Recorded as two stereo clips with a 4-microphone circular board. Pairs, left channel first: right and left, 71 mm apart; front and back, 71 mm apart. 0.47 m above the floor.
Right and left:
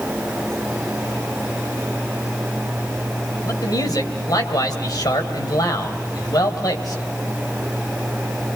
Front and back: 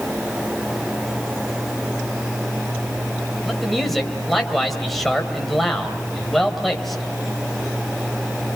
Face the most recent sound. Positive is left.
turn(degrees=-85)